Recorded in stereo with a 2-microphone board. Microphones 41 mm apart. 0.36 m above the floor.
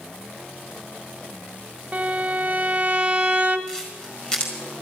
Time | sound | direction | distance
1.9 | a violin | 25° right (ahead or behind) | 1.3 m
3.7 | a camera shutter | 20° left (ahead or behind) | 4.5 m